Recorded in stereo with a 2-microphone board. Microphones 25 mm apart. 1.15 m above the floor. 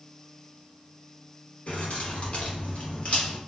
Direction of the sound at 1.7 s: 60° left (ahead or behind).